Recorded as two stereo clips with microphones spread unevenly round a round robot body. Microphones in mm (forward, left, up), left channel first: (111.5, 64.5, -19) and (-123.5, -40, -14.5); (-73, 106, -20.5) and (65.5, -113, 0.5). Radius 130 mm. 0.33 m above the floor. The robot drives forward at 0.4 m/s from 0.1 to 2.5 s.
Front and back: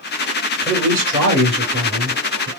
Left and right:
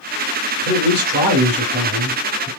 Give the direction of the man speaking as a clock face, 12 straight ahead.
3 o'clock.